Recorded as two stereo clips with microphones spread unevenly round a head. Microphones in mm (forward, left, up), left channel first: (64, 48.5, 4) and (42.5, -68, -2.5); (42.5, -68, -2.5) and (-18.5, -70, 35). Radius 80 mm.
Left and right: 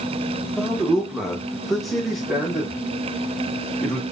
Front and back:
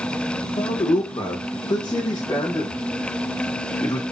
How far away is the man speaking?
About 1.2 m.